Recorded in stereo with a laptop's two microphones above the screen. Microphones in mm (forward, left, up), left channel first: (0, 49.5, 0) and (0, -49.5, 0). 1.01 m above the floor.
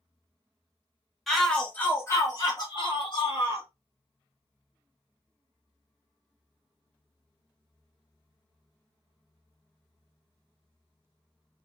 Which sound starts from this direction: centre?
A shout, at 1.3 s.